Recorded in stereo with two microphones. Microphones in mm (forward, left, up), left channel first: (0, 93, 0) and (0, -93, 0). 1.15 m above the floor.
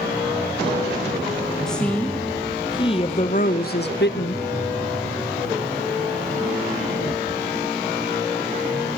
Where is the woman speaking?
5° left (ahead or behind), 1.9 m; by 4.4 s 70° left (ahead or behind), 1.2 m.